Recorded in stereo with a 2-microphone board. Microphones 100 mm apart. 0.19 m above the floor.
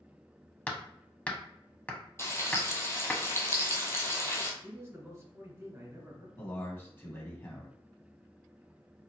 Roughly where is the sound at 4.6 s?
Right.